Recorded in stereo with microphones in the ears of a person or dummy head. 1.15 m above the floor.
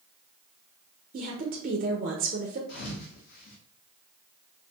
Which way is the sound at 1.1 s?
40° right (ahead or behind).